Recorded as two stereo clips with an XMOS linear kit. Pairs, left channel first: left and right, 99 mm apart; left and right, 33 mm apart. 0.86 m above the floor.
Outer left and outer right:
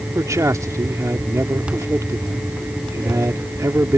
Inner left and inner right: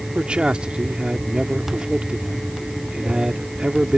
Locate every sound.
0.1 s a man speaking: 30° right (ahead or behind)